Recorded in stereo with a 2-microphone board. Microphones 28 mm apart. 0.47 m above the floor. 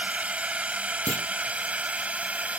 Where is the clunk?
75° left (ahead or behind).